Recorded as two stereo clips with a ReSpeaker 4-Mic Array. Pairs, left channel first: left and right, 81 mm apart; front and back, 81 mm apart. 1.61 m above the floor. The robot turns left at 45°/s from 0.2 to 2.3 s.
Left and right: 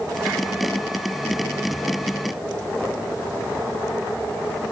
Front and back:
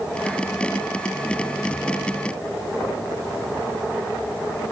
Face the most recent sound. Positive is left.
No sound to turn to.